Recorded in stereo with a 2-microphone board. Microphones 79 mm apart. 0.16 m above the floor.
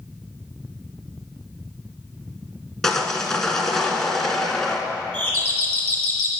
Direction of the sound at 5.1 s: 20° left (ahead or behind).